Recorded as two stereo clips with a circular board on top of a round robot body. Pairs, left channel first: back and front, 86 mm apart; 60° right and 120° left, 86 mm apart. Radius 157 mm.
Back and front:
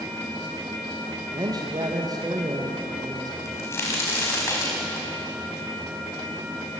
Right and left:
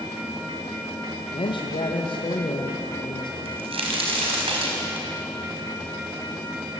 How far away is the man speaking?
About 2 m.